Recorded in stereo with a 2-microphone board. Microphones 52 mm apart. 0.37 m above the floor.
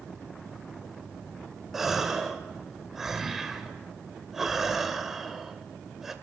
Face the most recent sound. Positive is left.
turn(degrees=-5)  # may be behind; listen again after turning